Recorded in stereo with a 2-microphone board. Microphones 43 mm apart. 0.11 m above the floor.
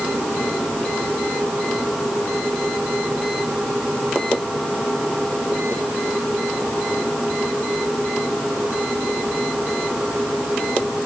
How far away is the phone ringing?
No phone ringing in this recording.